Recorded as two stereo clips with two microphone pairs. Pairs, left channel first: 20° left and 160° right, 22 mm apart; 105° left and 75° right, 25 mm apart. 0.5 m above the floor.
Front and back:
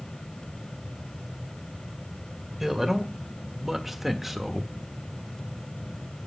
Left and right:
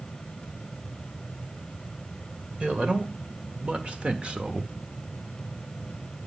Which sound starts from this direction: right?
A man speaking, at 2.6 s.